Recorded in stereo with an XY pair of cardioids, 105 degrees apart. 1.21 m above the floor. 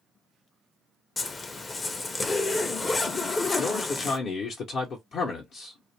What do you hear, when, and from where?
1.2 s a zipper: 35° left, 0.6 m
3.6 s a man speaking: 65° left, 0.8 m